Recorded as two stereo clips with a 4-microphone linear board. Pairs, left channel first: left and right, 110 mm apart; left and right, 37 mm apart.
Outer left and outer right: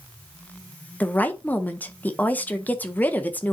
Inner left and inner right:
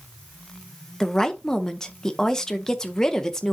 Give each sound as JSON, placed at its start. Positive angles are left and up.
{"t": 1.0, "sound": "a woman speaking", "side_deg": 15, "distance_m": 0.7}